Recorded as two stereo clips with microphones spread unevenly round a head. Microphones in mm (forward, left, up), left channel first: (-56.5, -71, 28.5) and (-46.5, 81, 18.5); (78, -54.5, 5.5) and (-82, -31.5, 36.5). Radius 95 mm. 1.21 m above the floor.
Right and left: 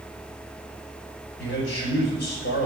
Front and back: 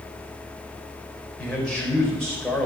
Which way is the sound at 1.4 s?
95° right.